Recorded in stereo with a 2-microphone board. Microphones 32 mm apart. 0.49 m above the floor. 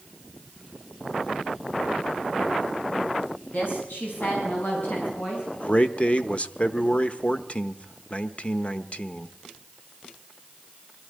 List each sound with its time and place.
3.4 s a woman speaking: 70° left (ahead or behind), 4.5 m; by 5.4 s 65° left (ahead or behind), 5.5 m
5.5 s a man speaking: 40° left (ahead or behind), 1.0 m